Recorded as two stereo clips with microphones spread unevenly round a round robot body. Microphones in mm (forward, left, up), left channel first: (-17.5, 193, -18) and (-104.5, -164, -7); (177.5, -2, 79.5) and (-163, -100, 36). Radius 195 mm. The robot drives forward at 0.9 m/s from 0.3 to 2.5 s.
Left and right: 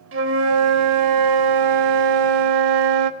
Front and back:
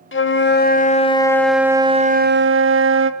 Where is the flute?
45° right, 2 m; by 3.1 s 115° right, 1.6 m.